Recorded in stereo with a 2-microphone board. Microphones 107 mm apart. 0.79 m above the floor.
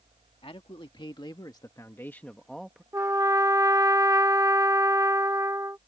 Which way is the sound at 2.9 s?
30° right (ahead or behind).